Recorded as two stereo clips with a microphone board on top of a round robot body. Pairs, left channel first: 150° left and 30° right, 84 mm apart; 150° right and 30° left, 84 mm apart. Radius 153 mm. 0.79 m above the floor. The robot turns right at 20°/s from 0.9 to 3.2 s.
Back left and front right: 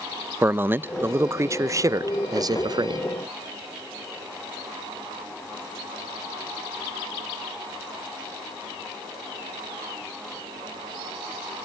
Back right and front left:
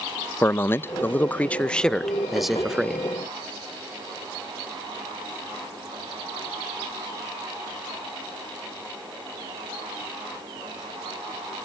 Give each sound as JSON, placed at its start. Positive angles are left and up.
{"t": 0.4, "sound": "a man speaking", "azimuth_deg": -90, "distance_m": 0.5}